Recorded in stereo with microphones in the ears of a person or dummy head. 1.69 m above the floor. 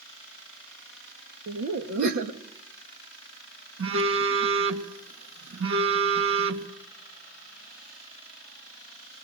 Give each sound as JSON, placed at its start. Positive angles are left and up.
{"t": 1.5, "sound": "laughter", "side_deg": -60, "distance_m": 1.9}
{"t": 3.8, "sound": "a phone buzzing", "side_deg": -75, "distance_m": 2.0}